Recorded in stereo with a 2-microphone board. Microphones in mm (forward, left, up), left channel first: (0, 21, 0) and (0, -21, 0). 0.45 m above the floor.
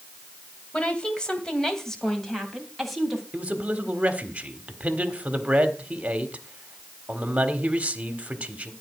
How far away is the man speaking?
About 1.6 m.